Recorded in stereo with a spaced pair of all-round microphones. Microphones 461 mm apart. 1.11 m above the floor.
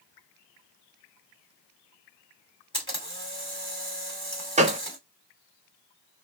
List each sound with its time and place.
2.7 s a camera shutter: 10° left (ahead or behind), 1.5 m
4.6 s a gunshot: 15° right (ahead or behind), 0.5 m